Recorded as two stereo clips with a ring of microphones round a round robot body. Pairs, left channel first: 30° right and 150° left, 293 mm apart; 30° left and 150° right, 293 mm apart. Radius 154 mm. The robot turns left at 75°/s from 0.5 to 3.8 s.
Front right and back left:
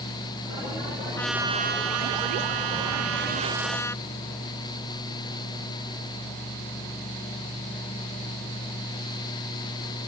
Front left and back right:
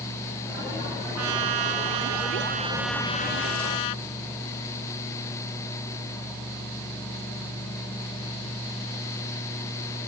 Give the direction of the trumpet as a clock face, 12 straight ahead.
4 o'clock.